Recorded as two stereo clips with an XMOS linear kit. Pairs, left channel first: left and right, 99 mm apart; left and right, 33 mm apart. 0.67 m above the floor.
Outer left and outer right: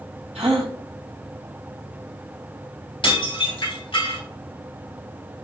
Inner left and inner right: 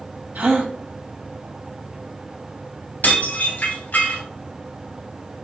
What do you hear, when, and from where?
0.3 s a gasp: 85° right, 4.5 m
3.0 s dishes clattering: 55° left (ahead or behind), 3.5 m